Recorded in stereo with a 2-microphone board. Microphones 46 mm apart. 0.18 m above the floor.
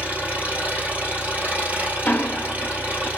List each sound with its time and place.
0.0 s an engine running: 35° right (ahead or behind), 2 m
2.0 s ticking: 45° left (ahead or behind), 0.6 m